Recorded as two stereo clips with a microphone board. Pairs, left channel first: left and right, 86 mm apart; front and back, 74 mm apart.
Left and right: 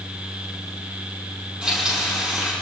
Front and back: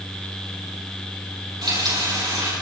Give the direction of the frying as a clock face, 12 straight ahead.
6 o'clock.